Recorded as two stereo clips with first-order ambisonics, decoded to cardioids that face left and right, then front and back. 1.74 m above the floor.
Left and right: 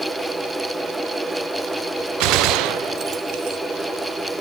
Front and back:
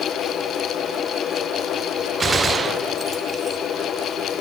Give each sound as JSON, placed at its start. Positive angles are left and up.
{"t": 2.2, "sound": "a gunshot", "azimuth_deg": -110, "distance_m": 0.8}